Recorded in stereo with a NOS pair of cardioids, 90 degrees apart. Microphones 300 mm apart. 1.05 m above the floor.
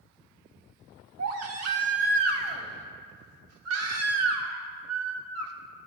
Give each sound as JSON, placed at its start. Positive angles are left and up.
{"t": 1.2, "sound": "a baby crying", "azimuth_deg": -55, "distance_m": 1.3}